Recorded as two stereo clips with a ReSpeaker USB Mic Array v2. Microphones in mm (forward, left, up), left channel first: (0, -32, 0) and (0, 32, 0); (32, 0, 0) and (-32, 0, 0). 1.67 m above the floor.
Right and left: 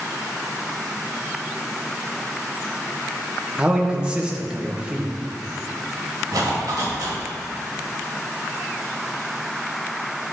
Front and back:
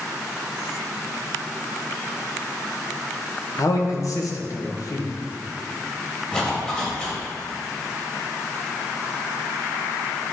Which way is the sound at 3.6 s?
20° left.